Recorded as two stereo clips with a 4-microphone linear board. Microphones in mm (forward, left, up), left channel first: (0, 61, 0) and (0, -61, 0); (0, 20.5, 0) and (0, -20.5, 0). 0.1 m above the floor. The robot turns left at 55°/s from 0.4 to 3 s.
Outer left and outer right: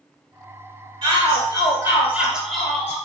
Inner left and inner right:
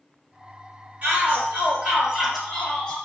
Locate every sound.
1.0 s a shout: 90° right, 1.9 m; by 3.0 s 160° left, 1.9 m